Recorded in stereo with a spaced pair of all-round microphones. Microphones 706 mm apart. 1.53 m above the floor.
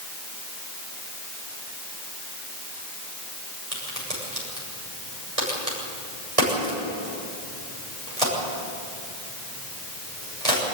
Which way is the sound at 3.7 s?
55° right (ahead or behind).